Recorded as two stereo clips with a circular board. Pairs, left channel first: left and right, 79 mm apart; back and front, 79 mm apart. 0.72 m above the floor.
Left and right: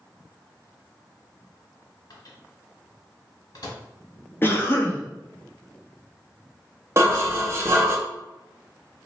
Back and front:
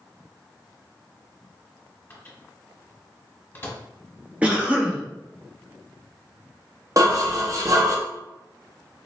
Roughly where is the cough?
Ahead left.